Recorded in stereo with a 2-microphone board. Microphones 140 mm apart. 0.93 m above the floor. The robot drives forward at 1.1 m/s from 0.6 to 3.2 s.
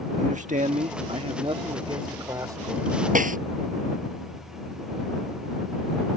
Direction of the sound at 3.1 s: 75° right (ahead or behind).